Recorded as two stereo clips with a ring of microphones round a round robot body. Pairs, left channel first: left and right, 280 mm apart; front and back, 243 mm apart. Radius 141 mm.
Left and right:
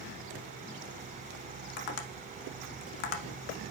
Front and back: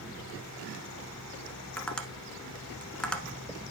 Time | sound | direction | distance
1.8 | tapping | 85° left | 1.0 m